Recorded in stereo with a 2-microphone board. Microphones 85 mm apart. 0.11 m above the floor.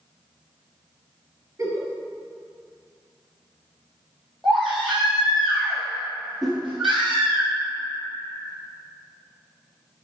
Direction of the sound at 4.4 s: Centre (ahead or behind).